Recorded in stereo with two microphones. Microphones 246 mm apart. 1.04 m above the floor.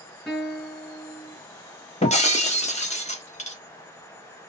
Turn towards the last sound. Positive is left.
turn(degrees=30)  # may be behind; listen again after turning